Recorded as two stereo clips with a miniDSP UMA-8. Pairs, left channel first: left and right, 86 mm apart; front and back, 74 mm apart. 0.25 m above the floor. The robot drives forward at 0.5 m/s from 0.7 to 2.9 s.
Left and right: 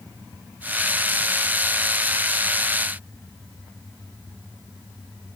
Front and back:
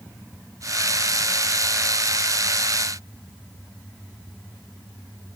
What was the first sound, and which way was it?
Only background noise.